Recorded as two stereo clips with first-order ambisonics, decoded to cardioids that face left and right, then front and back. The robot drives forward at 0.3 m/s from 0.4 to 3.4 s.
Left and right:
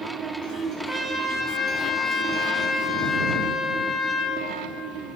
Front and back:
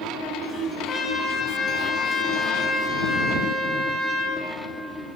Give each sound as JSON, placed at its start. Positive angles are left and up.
{"t": 0.9, "sound": "a trumpet", "azimuth_deg": -20, "distance_m": 1.1}